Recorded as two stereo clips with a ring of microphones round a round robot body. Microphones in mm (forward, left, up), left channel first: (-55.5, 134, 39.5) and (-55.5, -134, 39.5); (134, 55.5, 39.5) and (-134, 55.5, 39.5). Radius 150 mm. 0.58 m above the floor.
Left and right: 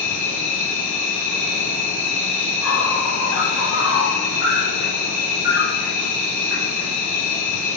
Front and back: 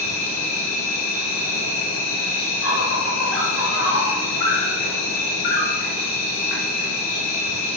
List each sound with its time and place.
0.0 s an insect: straight ahead, 2.0 m